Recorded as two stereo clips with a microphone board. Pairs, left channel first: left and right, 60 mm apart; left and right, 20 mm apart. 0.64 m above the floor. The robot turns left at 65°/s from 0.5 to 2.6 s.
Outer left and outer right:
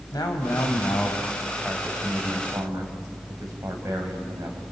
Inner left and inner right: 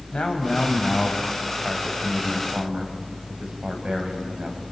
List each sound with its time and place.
0.1 s a man speaking: 75° left, 4.5 m; by 4.6 s 60° right, 4.5 m